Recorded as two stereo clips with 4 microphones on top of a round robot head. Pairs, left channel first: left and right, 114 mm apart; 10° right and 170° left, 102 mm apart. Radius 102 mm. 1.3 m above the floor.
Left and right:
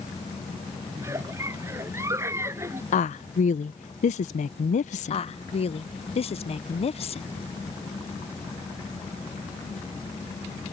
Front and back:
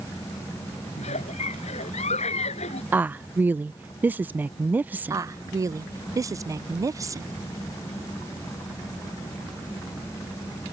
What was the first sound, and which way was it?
A giggle, 20° right.